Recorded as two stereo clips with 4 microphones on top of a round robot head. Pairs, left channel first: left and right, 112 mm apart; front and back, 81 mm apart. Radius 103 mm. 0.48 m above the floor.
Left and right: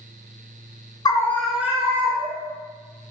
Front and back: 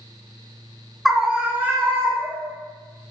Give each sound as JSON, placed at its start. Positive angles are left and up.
{"t": 1.1, "sound": "a scream", "azimuth_deg": 90, "distance_m": 1.0}